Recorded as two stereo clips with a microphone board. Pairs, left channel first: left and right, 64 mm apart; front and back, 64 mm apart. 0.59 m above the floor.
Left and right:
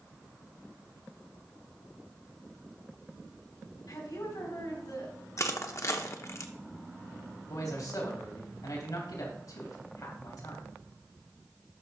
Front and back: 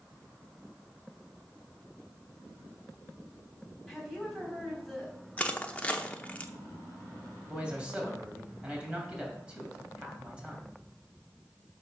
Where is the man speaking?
105° left, 3 m.